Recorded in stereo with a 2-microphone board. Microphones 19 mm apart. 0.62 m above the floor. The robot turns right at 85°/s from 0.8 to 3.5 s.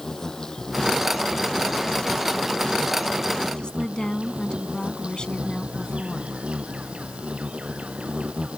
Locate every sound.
0.0 s an insect: 25° left; by 8.6 s 105° right
3.6 s a woman speaking: 50° left (ahead or behind)